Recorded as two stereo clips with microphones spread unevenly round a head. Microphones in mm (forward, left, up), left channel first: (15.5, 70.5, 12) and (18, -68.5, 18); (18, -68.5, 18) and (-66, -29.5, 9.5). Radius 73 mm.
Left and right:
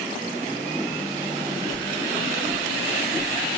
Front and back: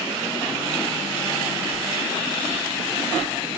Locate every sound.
1.7 s footsteps: 100° left, 1.0 m; by 3.6 s 70° right, 1.5 m